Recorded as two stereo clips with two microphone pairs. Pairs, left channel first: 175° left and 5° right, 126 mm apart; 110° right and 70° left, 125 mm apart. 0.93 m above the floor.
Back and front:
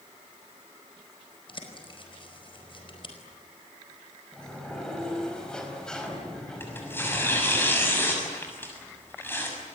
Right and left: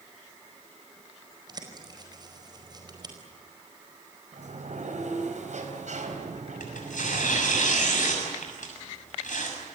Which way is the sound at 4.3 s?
95° left.